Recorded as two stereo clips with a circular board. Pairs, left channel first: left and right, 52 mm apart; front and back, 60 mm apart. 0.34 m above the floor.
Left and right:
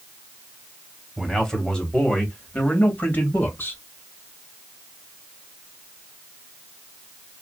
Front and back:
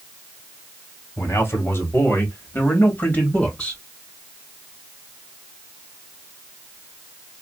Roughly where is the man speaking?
Ahead.